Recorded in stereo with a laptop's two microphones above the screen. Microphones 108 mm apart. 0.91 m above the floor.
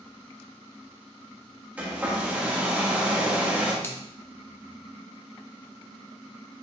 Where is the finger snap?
25° left (ahead or behind), 1.1 m.